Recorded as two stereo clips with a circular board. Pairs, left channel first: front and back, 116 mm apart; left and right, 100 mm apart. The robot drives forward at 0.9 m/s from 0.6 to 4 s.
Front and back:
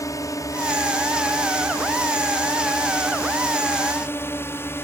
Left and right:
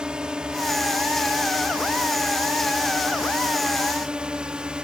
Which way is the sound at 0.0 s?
15° right.